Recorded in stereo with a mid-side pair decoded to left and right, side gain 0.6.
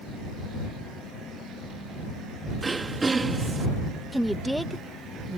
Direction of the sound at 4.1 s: 5° right.